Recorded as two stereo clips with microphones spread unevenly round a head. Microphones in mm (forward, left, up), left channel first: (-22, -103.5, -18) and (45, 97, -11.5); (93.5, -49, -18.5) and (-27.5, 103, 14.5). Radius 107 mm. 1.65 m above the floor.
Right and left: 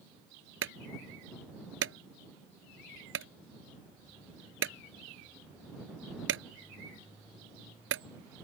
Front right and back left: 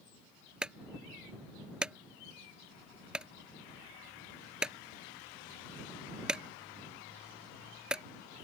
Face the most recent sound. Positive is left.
turn(degrees=45)